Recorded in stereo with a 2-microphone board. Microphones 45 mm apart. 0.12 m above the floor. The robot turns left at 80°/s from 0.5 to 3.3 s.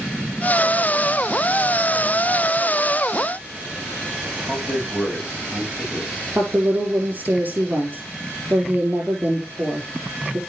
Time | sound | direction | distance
4.5 | a man speaking | 20° right (ahead or behind) | 6.5 m
6.3 | a woman speaking | 40° right (ahead or behind) | 5 m